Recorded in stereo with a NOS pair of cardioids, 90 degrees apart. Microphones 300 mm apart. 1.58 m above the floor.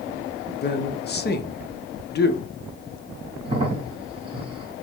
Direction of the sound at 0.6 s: 35° left.